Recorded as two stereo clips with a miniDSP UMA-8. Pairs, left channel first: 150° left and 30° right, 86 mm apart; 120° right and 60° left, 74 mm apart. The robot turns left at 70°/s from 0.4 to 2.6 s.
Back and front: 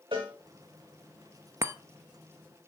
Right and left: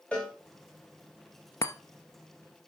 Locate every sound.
0.1 s a cowbell: 45° right, 4.5 m
1.6 s a chime: 85° right, 0.9 m; by 1.7 s 90° right, 0.9 m